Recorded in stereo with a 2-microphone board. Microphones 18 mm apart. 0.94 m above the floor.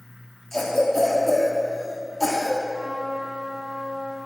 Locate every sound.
0.5 s a cough: 15° left (ahead or behind), 1.5 m
2.7 s a trumpet: 60° left (ahead or behind), 2.5 m